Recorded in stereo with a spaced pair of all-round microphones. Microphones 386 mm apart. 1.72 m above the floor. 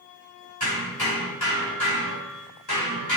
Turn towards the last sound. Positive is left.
turn(degrees=70)  # may be behind; listen again after turning